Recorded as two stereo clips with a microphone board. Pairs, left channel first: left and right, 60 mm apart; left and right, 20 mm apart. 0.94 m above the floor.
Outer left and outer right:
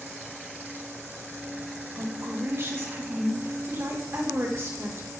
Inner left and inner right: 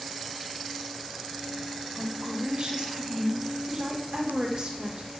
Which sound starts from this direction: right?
A woman speaking, at 1.9 s.